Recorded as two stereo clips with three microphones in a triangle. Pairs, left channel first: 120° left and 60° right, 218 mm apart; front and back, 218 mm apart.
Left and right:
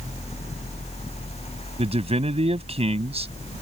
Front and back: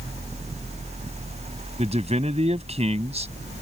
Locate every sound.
1.8 s a man speaking: 120° right